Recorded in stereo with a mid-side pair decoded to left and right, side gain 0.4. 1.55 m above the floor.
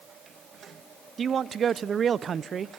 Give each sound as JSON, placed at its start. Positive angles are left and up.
{"t": 1.2, "sound": "a man speaking", "azimuth_deg": -50, "distance_m": 0.5}